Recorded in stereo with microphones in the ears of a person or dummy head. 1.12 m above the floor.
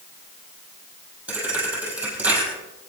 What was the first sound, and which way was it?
A thud, 5° right (ahead or behind).